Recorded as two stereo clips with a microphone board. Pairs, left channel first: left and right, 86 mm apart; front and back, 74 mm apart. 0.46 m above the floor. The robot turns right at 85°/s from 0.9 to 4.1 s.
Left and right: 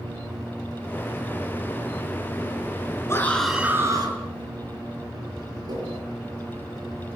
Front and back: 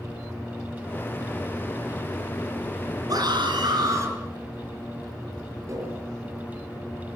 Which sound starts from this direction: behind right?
Tapping, at 5.7 s.